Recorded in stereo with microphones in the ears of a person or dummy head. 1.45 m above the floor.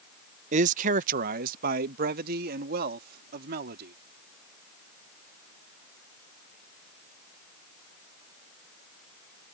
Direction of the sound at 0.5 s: 45° right (ahead or behind).